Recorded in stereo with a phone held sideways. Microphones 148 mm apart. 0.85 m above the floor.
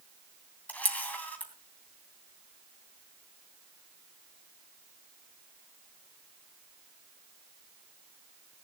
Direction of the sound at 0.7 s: 10° left (ahead or behind).